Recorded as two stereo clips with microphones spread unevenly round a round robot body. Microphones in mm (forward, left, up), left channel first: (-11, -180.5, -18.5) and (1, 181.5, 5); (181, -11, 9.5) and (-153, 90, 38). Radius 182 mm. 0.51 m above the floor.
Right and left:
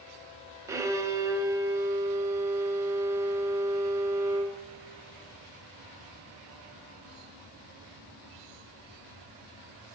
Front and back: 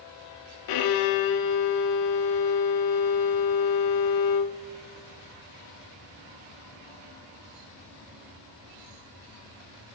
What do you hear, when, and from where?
0.7 s a violin: 5° left, 0.6 m